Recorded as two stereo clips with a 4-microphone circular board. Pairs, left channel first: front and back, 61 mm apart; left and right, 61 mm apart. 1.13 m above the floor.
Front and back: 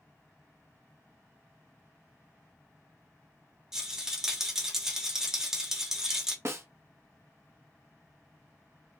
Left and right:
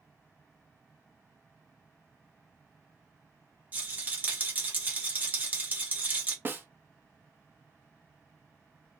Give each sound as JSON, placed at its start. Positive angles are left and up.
{"t": 3.7, "sound": "a rattle", "azimuth_deg": -110, "distance_m": 0.7}
{"t": 6.5, "sound": "a snare drum", "azimuth_deg": -140, "distance_m": 0.5}